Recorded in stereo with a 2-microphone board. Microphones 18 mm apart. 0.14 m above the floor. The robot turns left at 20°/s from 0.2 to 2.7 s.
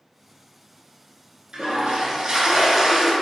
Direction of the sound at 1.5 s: 50° right (ahead or behind).